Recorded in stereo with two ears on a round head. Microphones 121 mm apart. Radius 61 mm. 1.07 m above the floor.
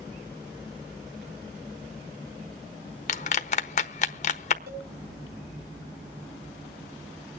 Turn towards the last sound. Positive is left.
turn(degrees=-80)